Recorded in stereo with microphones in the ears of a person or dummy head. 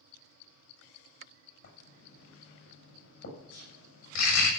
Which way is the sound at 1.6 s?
60° left (ahead or behind).